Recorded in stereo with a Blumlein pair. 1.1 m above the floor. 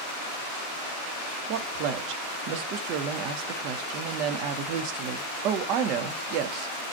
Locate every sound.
1.5 s a woman speaking: 40° right, 0.6 m